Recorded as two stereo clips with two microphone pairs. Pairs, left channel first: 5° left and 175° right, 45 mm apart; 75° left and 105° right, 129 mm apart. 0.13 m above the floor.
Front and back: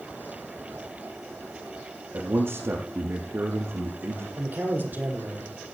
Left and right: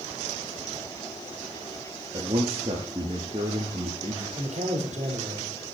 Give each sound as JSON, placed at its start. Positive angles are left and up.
{"t": 2.1, "sound": "a man speaking", "azimuth_deg": -145, "distance_m": 5.0}
{"t": 4.4, "sound": "a man speaking", "azimuth_deg": -130, "distance_m": 5.5}